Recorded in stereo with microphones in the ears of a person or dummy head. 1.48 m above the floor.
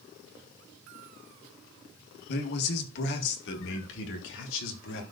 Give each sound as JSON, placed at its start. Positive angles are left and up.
{"t": 2.3, "sound": "a man speaking", "side_deg": 55, "distance_m": 1.6}